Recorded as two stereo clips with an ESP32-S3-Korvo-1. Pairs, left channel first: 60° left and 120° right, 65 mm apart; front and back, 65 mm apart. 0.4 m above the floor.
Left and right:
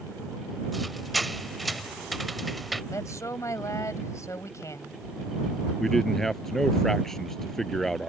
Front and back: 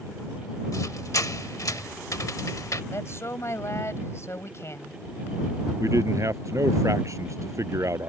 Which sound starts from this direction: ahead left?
A woman speaking, at 2.9 s.